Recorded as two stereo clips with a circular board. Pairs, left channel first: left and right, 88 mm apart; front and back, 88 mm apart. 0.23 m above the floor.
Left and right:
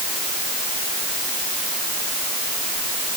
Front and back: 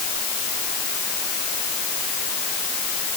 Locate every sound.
Only background noise.